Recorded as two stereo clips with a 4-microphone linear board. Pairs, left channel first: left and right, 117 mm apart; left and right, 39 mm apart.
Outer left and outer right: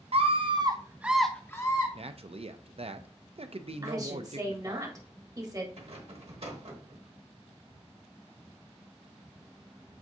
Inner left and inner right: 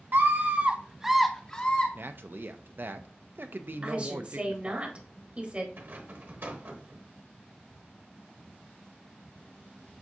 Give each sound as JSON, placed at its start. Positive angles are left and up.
{"t": 0.1, "sound": "a scream", "side_deg": -55, "distance_m": 0.8}
{"t": 1.9, "sound": "a man speaking", "side_deg": -55, "distance_m": 0.5}
{"t": 3.8, "sound": "a woman speaking", "side_deg": -30, "distance_m": 1.2}
{"t": 5.8, "sound": "a rattle", "side_deg": -60, "distance_m": 1.1}